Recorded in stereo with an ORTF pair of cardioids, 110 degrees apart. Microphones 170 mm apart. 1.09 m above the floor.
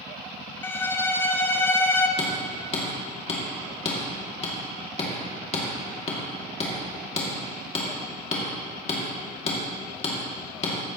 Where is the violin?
15° left, 0.6 m.